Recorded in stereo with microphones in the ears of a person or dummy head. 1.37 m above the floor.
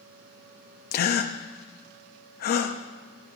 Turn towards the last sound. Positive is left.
turn(degrees=45)  # may be behind; listen again after turning